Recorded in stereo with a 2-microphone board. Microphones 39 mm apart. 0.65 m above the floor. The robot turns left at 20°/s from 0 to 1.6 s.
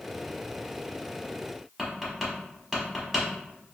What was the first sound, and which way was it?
Tapping, 5° right (ahead or behind).